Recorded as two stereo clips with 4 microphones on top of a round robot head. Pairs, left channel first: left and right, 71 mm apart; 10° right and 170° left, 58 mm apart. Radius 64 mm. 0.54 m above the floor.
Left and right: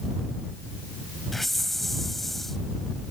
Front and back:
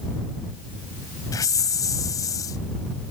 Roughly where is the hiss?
Ahead.